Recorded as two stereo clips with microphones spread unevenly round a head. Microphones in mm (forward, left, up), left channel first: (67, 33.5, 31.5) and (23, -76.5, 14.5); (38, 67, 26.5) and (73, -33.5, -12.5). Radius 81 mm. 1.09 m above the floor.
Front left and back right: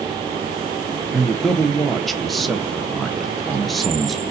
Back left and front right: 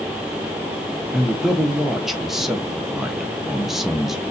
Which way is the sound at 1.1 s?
35° right.